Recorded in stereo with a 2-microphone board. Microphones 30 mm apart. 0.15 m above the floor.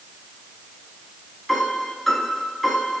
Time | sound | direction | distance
1.5 | a piano | 5° left (ahead or behind) | 1.0 m